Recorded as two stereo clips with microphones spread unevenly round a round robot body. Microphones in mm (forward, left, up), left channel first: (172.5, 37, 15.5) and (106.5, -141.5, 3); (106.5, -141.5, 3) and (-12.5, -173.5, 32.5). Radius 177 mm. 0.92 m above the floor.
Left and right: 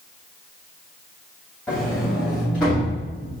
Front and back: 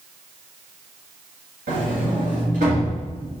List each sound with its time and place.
1.7 s a sliding door: 160° left, 2.5 m